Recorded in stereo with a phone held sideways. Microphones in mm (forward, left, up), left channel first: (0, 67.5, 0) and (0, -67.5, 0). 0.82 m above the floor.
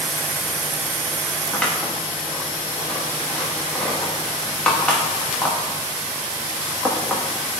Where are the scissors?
10° left (ahead or behind), 1.2 m.